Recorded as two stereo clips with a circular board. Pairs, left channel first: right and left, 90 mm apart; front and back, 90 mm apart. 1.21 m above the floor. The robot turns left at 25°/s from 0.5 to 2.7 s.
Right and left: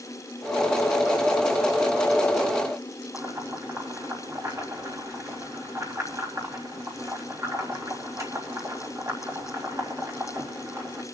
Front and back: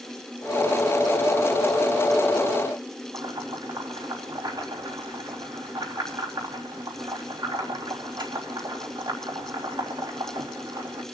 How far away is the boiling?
About 3.5 m.